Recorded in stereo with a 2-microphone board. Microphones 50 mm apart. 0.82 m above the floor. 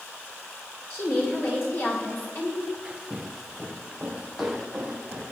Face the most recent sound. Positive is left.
turn(degrees=0)  # may be behind; listen again after turning